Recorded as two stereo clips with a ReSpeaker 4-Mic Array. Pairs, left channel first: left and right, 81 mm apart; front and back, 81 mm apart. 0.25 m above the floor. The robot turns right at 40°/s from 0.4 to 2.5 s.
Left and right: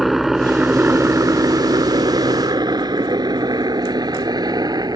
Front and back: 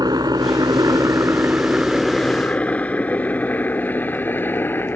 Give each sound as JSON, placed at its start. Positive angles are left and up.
{"t": 0.0, "sound": "a helicopter", "azimuth_deg": -175}